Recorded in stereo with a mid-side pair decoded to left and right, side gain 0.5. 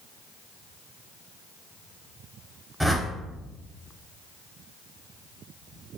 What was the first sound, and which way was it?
A whoosh, 10° right.